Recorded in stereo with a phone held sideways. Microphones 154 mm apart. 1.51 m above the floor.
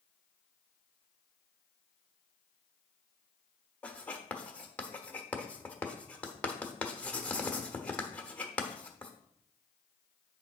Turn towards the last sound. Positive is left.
turn(degrees=10)  # may be behind; listen again after turning